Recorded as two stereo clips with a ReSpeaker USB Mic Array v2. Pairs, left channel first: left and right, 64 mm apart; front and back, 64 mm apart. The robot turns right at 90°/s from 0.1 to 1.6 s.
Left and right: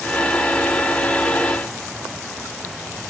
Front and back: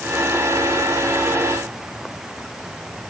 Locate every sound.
Only background noise.